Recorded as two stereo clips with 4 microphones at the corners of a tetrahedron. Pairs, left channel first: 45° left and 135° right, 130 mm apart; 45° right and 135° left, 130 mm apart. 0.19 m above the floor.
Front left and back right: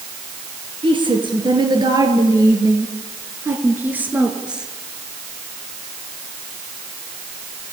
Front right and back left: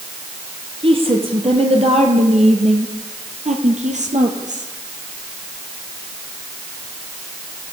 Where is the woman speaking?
Straight behind, 3.5 m; by 4.7 s 140° left, 3.5 m.